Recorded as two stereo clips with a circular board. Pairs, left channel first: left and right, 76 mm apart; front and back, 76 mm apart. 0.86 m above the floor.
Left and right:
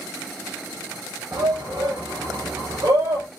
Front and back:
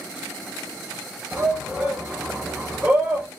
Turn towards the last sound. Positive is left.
turn(degrees=-105)